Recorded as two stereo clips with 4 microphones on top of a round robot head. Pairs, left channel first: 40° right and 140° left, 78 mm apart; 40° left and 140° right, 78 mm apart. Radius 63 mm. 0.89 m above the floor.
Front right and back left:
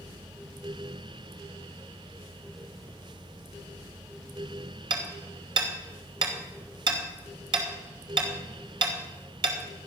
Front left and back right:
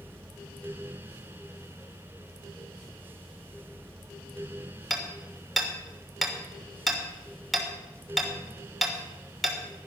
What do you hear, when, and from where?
4.9 s hammering: 130° left, 3 m